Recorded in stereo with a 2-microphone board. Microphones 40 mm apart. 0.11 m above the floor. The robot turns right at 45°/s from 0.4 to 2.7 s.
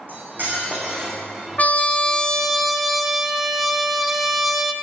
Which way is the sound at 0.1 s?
55° right.